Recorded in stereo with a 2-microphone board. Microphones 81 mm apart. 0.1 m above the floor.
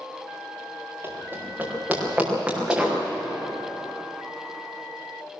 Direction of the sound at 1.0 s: 25° right (ahead or behind).